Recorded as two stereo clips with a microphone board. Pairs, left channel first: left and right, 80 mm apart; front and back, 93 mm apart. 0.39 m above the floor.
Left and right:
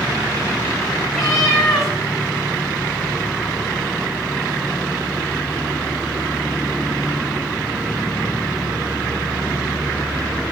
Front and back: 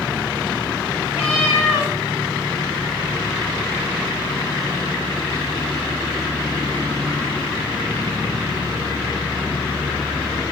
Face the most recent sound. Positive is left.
turn(degrees=0)